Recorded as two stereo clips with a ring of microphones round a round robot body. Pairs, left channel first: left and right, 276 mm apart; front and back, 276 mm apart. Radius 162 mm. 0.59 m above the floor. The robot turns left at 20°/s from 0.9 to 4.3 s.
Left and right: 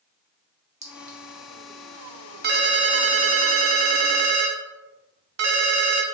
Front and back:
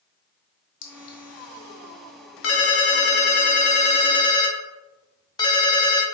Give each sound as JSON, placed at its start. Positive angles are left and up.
{"t": 0.8, "sound": "a clink", "azimuth_deg": -25, "distance_m": 0.8}
{"t": 2.4, "sound": "a ringtone", "azimuth_deg": -35, "distance_m": 0.7}